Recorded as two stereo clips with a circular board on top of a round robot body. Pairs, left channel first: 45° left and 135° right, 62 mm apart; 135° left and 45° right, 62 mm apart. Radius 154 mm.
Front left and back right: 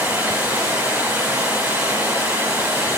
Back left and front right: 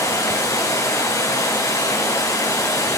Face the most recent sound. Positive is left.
turn(degrees=155)